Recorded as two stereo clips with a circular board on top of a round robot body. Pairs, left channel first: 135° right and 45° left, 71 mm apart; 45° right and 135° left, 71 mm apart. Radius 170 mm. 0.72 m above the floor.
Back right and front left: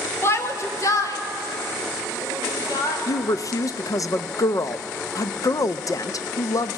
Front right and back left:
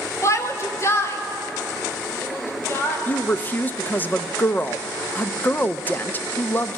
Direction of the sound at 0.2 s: 85° right.